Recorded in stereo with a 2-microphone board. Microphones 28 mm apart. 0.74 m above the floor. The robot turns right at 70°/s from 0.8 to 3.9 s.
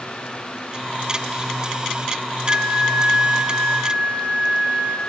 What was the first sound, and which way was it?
A flute, 150° right.